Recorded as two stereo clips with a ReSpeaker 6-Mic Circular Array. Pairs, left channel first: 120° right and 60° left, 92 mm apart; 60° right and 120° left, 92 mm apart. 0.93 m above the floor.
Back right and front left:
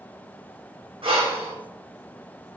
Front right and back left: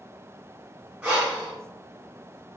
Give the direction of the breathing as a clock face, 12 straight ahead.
10 o'clock.